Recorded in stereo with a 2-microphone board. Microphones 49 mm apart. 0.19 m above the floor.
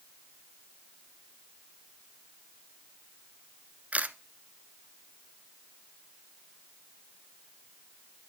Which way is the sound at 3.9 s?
30° right (ahead or behind).